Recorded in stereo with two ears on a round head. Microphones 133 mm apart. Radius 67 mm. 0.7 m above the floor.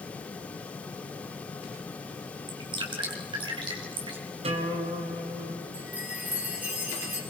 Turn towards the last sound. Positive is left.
turn(degrees=-10)  # may be behind; listen again after turning